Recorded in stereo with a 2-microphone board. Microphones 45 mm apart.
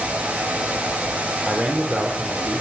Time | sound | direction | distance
1.4 | a man speaking | 30° right (ahead or behind) | 5 m